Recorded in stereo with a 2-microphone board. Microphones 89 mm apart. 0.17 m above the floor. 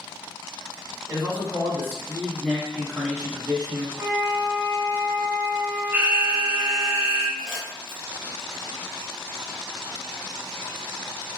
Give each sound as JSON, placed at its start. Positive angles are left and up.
{"t": 1.1, "sound": "a man speaking", "side_deg": 40, "distance_m": 1.8}
{"t": 4.0, "sound": "a flute", "side_deg": -35, "distance_m": 0.6}
{"t": 5.9, "sound": "an alarm", "side_deg": -25, "distance_m": 0.9}
{"t": 7.4, "sound": "crumpling", "side_deg": 10, "distance_m": 1.4}